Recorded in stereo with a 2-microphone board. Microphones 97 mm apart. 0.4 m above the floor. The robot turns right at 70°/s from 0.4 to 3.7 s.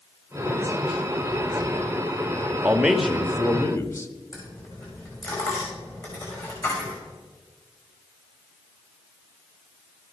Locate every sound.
2.6 s a man speaking: 25° right, 0.9 m; by 4.1 s 50° left, 0.9 m
4.3 s a dropped coin: 35° left (ahead or behind), 4.5 m